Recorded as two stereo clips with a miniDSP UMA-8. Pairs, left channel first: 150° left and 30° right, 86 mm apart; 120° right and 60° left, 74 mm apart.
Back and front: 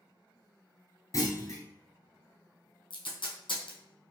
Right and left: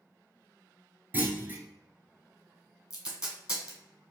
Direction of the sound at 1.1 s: 115° left.